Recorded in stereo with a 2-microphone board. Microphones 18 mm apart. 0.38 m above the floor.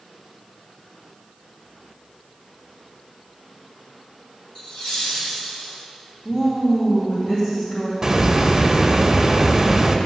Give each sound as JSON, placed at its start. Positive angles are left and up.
{"t": 4.5, "sound": "laughter", "side_deg": 50, "distance_m": 2.0}
{"t": 6.2, "sound": "a woman speaking", "side_deg": 35, "distance_m": 2.0}
{"t": 8.0, "sound": "a hiss", "side_deg": -25, "distance_m": 0.8}